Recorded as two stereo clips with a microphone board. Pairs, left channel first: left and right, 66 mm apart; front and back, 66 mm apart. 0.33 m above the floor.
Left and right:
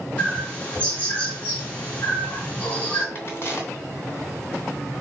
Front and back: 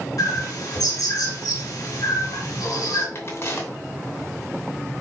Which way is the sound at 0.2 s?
25° left.